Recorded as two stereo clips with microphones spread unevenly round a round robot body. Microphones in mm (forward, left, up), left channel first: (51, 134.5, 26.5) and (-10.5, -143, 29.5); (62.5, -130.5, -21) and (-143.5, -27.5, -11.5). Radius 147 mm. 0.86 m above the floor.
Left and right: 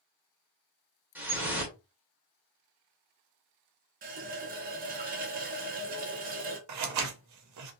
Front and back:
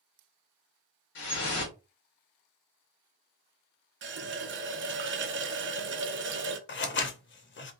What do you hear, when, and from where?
1.1 s dripping: 20° right, 1.3 m
4.0 s a running tap: 165° right, 0.6 m
6.7 s scissors: 70° right, 0.7 m